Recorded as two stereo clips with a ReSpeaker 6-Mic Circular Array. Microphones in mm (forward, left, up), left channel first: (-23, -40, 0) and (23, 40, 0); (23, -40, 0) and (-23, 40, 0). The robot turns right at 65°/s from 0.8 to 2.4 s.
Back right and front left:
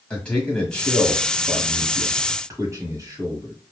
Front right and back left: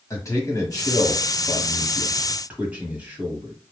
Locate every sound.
0.1 s a man speaking: 50° right, 1.4 m; by 3.5 s 55° left, 1.4 m